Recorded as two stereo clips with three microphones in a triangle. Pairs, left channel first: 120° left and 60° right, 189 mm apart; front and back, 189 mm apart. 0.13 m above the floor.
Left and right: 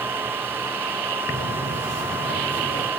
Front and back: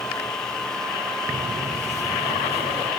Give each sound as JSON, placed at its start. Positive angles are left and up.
{"t": 1.3, "sound": "footsteps", "azimuth_deg": 130, "distance_m": 1.7}